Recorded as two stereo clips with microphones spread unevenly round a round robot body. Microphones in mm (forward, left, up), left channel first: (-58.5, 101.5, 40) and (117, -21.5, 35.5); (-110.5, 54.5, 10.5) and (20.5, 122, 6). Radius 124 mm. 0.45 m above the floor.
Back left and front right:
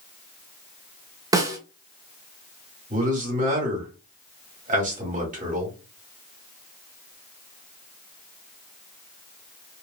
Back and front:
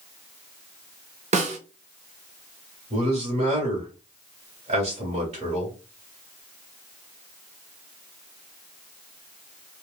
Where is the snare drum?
35° left, 0.9 m.